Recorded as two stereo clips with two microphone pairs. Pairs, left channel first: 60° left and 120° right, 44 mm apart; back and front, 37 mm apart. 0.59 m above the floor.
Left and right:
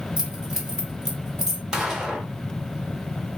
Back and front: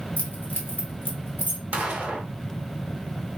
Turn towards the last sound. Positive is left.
turn(degrees=-45)